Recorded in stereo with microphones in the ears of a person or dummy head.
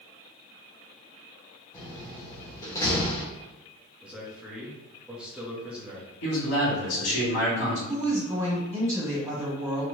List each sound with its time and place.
1.7 s a door slam: 20° left (ahead or behind), 1.1 m
4.0 s a man speaking: 5° right (ahead or behind), 0.8 m
6.2 s a man speaking: 75° left (ahead or behind), 1.8 m
7.9 s a woman speaking: 15° right (ahead or behind), 1.6 m